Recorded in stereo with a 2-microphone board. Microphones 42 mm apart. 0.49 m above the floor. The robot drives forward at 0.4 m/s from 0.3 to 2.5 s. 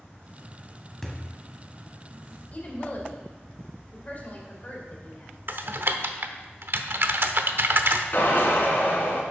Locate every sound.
1.0 s a thud: 10° left (ahead or behind), 1.8 m
2.5 s a woman speaking: 35° left (ahead or behind), 2 m
5.5 s typing on a keyboard: 55° right (ahead or behind), 0.7 m
8.1 s a drill: 55° left (ahead or behind), 2.5 m